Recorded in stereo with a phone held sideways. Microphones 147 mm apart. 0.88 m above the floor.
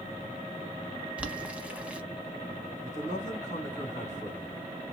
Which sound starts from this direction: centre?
Boiling, at 1.2 s.